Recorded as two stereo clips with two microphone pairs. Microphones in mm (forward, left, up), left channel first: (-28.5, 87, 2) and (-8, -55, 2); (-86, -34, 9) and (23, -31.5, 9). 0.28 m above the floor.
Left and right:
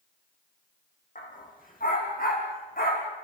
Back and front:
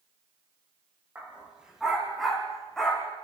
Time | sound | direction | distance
1.1 | a dog barking | 80° left | 5 m